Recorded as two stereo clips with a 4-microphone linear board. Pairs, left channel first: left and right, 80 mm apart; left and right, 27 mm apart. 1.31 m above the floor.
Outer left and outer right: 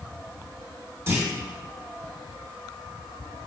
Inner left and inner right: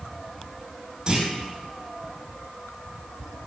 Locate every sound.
1.1 s a clunk: 30° right (ahead or behind), 2 m